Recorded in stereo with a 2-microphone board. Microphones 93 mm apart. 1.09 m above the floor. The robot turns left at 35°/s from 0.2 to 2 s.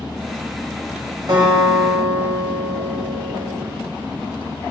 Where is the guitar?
50° right (ahead or behind), 1.2 m; by 3.6 s 45° right (ahead or behind), 1.2 m.